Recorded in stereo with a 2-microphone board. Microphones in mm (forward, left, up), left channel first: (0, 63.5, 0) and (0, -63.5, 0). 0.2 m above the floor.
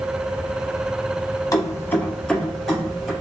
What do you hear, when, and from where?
1.5 s keys jangling: 30° left (ahead or behind), 0.7 m; by 3.1 s centre (ahead or behind), 2.5 m